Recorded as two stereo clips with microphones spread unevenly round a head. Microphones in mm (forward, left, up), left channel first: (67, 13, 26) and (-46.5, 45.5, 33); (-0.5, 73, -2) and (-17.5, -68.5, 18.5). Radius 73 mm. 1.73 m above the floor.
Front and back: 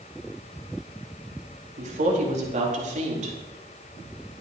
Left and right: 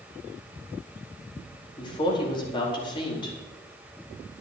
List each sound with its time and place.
1.8 s a woman speaking: 140° left, 4.5 m